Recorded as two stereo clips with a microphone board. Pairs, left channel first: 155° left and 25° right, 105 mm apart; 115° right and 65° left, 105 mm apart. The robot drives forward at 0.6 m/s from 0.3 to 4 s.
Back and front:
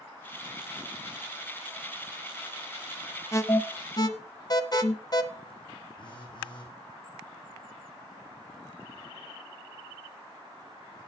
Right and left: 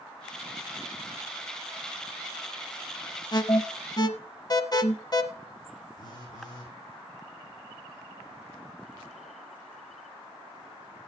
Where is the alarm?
145° right, 1.1 m; by 5.2 s 155° right, 1.4 m.